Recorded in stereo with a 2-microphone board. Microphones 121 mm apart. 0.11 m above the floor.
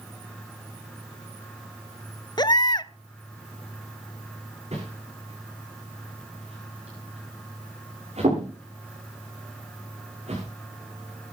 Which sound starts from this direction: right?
A whoosh, at 4.7 s.